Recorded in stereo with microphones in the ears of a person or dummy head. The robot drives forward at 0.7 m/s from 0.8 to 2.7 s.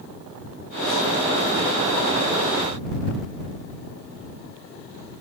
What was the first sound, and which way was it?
Only background noise.